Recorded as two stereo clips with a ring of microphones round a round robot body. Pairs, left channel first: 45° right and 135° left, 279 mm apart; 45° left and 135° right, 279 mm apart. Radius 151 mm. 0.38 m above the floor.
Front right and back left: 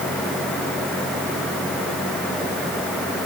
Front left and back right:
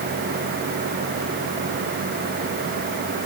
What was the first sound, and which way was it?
Only background noise.